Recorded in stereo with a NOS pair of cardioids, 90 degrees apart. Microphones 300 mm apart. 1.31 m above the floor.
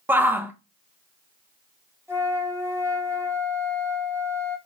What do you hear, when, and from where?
0.1 s a shout: 5° right, 0.9 m
2.1 s a flute: 10° right, 1.4 m